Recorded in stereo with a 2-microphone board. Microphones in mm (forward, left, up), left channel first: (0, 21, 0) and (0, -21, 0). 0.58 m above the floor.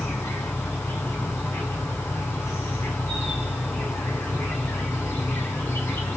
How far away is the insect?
About 8.5 m.